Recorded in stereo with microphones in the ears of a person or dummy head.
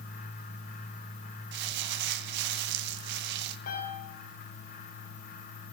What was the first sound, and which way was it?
Crumpling, 65° right (ahead or behind).